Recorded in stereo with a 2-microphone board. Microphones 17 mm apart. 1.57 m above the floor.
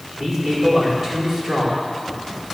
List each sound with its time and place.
0.1 s a man speaking: 30° right (ahead or behind), 4.5 m